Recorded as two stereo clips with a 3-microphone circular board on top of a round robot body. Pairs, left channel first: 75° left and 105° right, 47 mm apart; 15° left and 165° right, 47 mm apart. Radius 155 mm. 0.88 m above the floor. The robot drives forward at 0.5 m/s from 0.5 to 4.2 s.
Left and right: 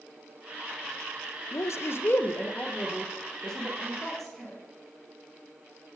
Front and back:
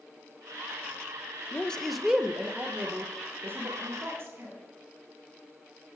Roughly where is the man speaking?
Left.